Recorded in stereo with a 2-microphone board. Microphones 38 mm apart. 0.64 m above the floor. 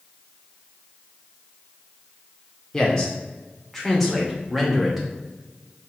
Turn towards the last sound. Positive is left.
turn(degrees=-5)  # may be behind; listen again after turning